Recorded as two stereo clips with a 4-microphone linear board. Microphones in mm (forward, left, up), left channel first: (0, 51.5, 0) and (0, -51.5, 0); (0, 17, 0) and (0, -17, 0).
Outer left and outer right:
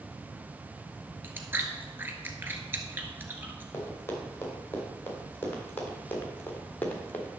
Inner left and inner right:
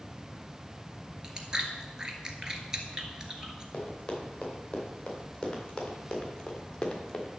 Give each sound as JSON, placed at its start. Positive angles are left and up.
{"t": 1.2, "sound": "chewing", "side_deg": -20, "distance_m": 1.6}
{"t": 3.7, "sound": "running footsteps", "side_deg": 25, "distance_m": 5.0}